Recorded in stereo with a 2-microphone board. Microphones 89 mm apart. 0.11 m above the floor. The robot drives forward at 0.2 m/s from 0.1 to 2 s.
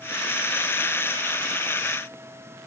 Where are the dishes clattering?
No dishes clattering in this recording.